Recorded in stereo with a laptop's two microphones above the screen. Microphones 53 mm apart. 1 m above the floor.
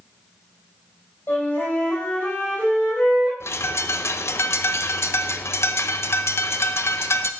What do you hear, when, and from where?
1.3 s a flute: 40° left (ahead or behind), 3.5 m
3.4 s a bird: 55° left (ahead or behind), 0.5 m